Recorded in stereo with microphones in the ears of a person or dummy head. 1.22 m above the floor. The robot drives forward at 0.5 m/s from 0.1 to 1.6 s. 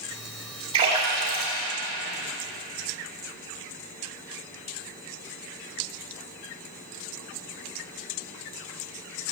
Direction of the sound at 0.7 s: 30° right (ahead or behind).